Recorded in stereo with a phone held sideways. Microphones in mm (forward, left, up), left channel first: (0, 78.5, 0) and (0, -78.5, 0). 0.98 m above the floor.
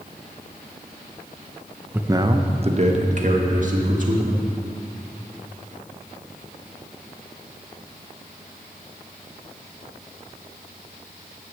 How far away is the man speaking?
About 0.6 m.